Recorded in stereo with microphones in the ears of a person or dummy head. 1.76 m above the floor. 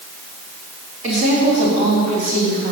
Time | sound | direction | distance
1.0 | a woman speaking | 30° right (ahead or behind) | 4 m